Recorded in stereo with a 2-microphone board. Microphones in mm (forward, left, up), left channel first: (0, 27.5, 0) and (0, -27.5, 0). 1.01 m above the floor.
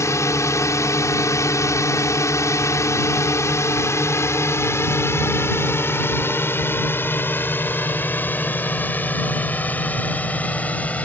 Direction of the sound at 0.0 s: 65° left (ahead or behind).